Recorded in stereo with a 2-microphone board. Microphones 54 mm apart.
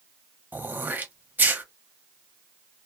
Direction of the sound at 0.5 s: 35° right (ahead or behind).